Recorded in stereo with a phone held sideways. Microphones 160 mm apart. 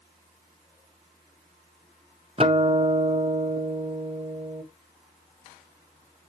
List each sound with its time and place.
2.4 s a guitar: 35° right (ahead or behind), 0.9 m